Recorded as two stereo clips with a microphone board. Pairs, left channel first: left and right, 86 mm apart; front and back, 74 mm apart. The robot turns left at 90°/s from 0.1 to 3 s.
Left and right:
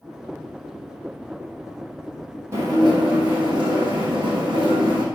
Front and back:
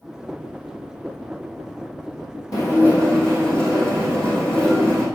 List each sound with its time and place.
2.5 s dishes clattering: 35° right, 4 m; by 5.0 s 75° right, 4 m